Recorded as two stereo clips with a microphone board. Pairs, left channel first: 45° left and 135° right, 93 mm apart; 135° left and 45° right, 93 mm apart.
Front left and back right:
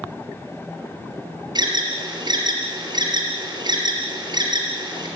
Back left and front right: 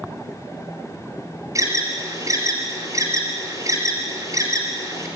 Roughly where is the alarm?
Right.